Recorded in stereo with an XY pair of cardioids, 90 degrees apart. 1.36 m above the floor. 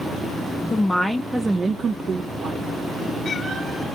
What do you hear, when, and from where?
0.7 s a woman speaking: 30° left, 0.6 m; by 2.7 s 70° right, 0.9 m